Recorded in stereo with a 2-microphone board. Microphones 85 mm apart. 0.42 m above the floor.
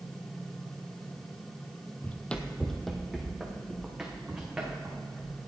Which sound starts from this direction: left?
Running footsteps, at 2.0 s.